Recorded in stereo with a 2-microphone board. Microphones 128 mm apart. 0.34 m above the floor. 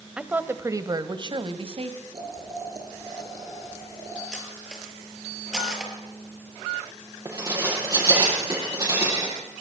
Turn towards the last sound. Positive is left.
turn(degrees=-30)  # may be behind; listen again after turning